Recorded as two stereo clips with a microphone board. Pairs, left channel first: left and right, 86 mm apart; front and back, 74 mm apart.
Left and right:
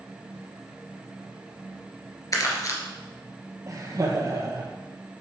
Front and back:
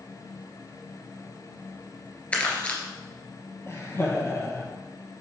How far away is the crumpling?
About 2.0 m.